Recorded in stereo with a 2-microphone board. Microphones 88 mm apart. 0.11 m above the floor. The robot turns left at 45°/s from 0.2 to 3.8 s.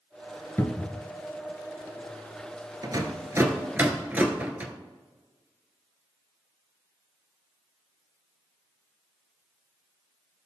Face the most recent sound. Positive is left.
turn(degrees=-20)  # may be behind; listen again after turning